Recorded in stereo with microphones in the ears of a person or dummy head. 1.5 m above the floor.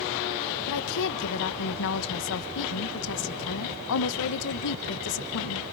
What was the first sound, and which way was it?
A woman speaking, 70° left (ahead or behind).